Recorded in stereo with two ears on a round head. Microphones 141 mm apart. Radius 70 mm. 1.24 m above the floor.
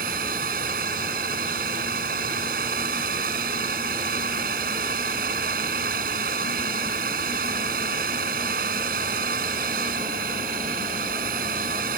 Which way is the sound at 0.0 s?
60° right (ahead or behind).